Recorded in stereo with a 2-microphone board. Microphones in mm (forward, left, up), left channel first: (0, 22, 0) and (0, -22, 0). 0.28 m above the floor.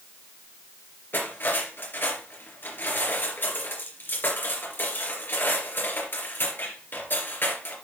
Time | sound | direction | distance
1.1 | cutlery clinking | 55° left (ahead or behind) | 3 m